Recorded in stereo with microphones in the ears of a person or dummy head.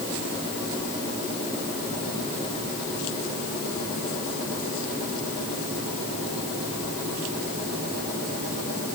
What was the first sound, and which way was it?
Only background noise.